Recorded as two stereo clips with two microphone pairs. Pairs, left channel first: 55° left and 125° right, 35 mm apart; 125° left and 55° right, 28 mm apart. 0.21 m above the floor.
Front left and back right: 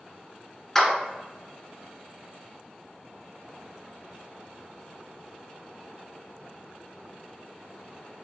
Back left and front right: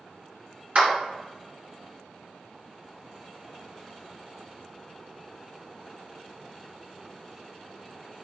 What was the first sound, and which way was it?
A clap, 30° right.